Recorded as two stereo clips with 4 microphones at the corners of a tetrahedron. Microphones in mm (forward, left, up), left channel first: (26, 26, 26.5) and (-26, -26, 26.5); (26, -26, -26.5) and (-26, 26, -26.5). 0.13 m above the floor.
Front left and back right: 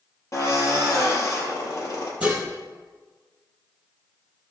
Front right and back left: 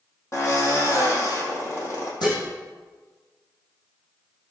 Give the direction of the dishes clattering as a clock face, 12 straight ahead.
2 o'clock.